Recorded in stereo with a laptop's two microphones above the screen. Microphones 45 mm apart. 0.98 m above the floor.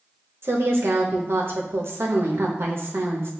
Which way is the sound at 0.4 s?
60° right (ahead or behind).